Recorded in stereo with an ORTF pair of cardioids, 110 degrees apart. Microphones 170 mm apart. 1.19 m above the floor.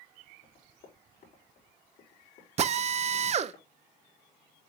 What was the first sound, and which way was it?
Running footsteps, 50° left.